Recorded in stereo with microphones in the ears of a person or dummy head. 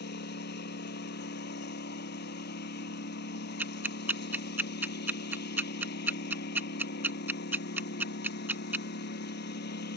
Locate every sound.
0.0 s a lawn mower: 60° left (ahead or behind)
3.6 s ticking: 10° right (ahead or behind)